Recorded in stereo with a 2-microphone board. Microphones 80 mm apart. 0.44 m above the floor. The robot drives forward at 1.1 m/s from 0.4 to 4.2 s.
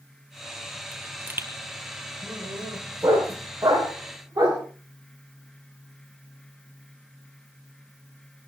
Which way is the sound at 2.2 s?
35° right (ahead or behind).